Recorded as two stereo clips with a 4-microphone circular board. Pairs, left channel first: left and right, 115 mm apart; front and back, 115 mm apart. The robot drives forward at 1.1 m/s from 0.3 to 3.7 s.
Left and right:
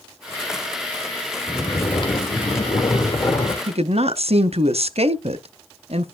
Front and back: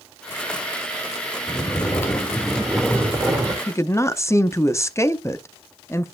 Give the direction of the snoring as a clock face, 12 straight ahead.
10 o'clock.